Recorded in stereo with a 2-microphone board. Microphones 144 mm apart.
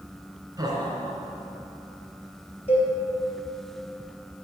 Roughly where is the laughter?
Right.